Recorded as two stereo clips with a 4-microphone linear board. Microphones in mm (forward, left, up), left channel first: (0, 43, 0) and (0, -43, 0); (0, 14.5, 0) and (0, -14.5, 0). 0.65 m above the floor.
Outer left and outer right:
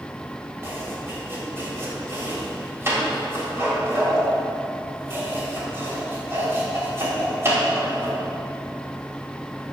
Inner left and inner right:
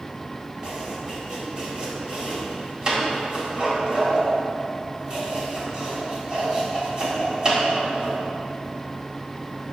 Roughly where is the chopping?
Right.